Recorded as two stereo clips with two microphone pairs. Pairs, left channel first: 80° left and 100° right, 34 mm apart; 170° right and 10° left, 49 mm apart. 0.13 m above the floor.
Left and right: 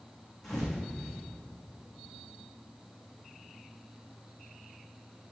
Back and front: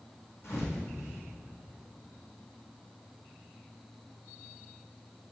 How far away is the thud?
About 3 m.